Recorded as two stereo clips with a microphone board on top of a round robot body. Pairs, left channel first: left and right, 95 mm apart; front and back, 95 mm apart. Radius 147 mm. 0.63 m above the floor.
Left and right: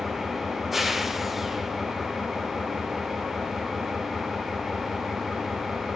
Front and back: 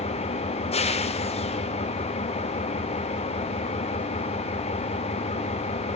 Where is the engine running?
Straight ahead, 1.2 m.